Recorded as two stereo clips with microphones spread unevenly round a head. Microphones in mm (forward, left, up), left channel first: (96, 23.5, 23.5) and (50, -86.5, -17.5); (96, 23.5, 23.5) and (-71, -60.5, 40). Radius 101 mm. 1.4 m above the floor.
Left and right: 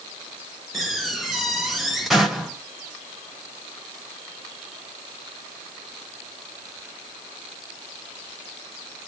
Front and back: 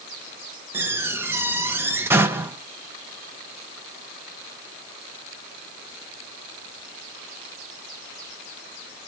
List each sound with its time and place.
0.7 s a door slam: 135° left, 0.6 m